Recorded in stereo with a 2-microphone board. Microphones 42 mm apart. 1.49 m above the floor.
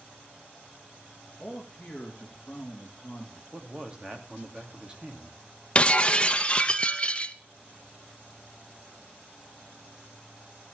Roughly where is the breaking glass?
Left.